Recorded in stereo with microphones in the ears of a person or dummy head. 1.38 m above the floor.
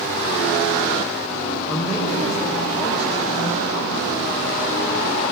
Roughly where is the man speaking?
Centre.